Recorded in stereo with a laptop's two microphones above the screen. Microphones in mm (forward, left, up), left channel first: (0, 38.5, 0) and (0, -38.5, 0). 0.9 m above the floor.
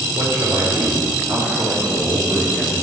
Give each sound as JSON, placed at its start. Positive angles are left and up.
{"t": 0.1, "sound": "a man speaking", "side_deg": -65, "distance_m": 1.7}